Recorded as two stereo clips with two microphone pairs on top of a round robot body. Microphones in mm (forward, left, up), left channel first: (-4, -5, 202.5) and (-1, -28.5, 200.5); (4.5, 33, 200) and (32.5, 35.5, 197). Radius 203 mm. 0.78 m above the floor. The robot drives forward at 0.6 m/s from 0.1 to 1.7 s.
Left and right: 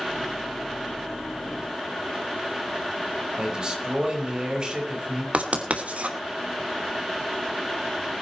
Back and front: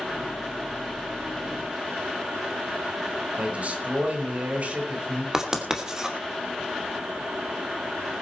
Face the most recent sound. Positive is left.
turn(degrees=-65)